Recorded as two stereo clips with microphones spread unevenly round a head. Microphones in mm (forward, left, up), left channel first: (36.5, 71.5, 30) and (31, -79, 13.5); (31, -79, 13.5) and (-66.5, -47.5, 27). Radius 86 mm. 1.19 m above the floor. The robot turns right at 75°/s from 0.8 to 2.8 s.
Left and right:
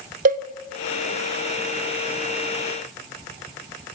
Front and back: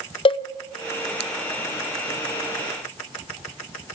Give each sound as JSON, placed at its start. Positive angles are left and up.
{"t": 0.2, "sound": "a cowbell", "azimuth_deg": -55, "distance_m": 0.7}